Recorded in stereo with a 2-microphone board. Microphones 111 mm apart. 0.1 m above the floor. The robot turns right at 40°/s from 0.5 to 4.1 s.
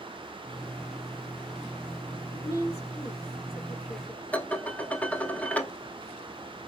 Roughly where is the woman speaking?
Left.